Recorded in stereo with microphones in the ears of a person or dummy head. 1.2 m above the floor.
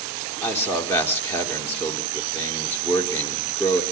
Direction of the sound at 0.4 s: 15° left (ahead or behind).